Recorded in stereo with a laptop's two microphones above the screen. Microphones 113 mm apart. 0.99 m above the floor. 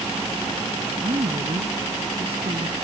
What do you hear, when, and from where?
1.0 s a woman speaking: 60° right (ahead or behind)